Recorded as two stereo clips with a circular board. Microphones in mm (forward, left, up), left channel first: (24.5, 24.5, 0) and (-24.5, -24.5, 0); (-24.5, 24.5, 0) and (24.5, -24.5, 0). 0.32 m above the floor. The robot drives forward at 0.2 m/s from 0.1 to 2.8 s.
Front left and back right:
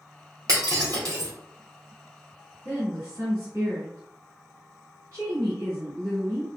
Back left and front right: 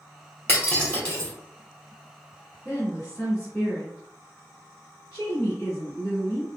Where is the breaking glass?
165° right, 2 m; by 1.3 s 170° right, 2 m.